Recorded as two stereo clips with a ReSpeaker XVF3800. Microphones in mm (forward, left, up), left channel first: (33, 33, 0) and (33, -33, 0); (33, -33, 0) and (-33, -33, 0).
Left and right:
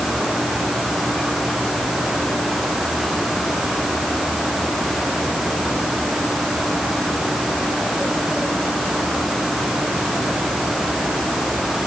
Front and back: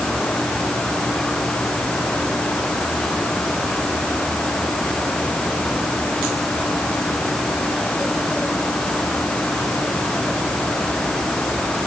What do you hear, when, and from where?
Only background noise.